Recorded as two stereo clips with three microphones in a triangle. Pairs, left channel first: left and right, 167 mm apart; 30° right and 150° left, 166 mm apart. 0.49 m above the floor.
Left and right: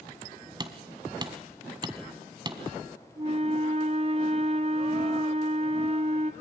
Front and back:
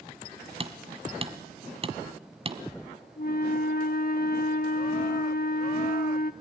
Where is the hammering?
155° right, 1.3 m.